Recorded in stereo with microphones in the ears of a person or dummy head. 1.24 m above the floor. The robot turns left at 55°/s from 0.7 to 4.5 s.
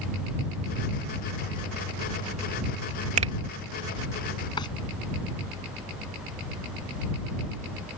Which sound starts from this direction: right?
A finger snap, at 3.2 s.